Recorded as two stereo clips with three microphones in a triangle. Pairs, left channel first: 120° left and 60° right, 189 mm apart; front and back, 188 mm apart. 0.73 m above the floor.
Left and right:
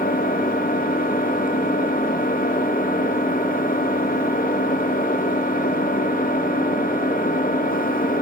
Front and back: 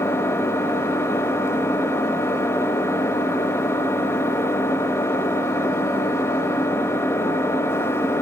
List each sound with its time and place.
0.0 s an engine running: 75° left, 1.2 m